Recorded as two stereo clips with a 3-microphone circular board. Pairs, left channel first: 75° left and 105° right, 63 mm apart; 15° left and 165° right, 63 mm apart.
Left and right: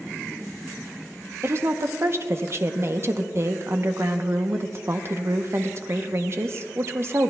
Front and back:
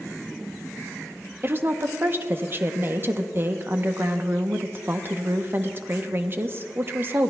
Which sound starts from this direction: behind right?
A woman speaking, at 1.4 s.